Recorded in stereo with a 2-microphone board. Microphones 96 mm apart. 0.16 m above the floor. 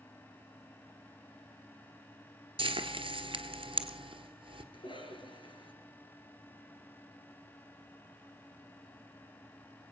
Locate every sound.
2.6 s frying: 65° right (ahead or behind), 1.1 m
4.7 s a cough: 60° left (ahead or behind), 2.5 m